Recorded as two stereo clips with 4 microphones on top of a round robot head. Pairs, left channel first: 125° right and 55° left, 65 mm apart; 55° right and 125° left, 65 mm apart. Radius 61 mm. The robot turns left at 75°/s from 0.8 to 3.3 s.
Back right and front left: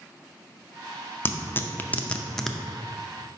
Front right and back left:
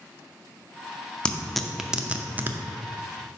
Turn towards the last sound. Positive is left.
turn(degrees=90)